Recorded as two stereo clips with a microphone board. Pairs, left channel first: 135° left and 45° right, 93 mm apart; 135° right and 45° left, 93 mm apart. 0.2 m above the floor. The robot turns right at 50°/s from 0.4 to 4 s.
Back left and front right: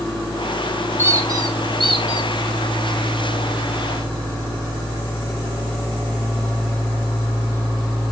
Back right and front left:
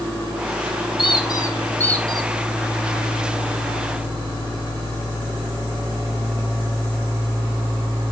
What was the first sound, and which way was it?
A squeak, 105° right.